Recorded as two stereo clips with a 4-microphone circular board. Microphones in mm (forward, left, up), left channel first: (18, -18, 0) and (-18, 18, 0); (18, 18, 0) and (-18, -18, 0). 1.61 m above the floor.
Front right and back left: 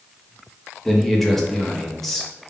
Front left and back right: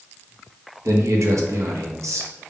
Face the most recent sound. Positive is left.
turn(degrees=-130)